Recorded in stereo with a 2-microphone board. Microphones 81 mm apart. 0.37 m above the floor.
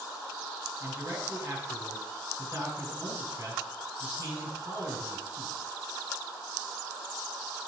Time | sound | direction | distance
0.8 | a man speaking | 45° right (ahead or behind) | 6.5 m